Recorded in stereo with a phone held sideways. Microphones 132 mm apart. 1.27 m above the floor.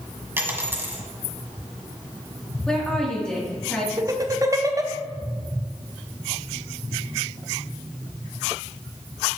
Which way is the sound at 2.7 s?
5° left (ahead or behind).